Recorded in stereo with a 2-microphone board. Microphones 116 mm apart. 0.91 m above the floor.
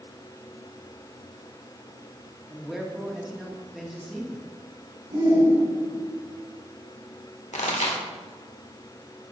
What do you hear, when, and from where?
2.5 s a man speaking: 5° right (ahead or behind), 1.5 m
5.1 s a shout: 75° right (ahead or behind), 3 m
7.5 s a pop: 80° left, 1.4 m